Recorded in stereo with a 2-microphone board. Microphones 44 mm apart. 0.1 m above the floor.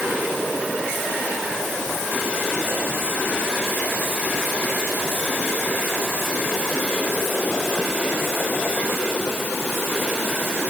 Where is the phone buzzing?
No phone buzzing in this recording.